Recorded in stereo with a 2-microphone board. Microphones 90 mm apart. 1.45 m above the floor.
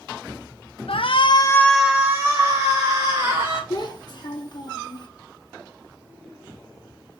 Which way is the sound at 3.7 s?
50° left (ahead or behind).